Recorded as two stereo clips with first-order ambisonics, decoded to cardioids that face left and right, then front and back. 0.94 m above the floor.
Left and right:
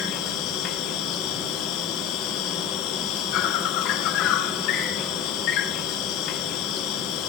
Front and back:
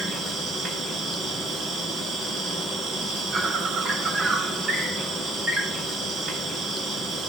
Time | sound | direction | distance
0.0 | an insect | 115° left | 2.5 m